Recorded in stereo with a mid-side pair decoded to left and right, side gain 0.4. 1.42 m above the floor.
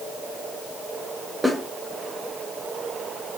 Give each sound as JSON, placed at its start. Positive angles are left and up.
{"t": 1.4, "sound": "a snare drum", "azimuth_deg": -5, "distance_m": 1.2}